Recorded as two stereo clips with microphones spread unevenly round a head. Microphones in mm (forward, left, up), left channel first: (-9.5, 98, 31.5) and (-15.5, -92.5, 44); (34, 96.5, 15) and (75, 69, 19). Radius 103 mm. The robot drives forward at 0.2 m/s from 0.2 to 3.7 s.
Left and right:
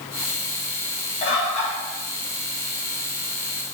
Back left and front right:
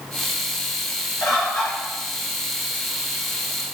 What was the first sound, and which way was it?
A bird, 145° left.